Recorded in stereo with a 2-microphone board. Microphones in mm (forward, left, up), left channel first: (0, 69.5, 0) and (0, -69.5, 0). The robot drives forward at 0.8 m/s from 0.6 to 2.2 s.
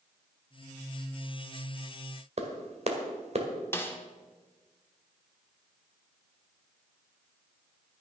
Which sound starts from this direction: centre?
A snare drum, at 3.7 s.